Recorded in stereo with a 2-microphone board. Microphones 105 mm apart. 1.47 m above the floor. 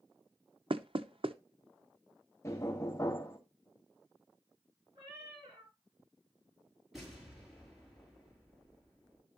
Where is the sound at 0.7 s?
60° right (ahead or behind), 0.7 m.